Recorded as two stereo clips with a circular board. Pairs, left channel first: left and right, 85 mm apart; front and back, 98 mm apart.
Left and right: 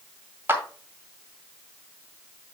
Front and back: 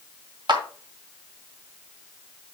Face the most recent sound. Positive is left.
turn(degrees=-150)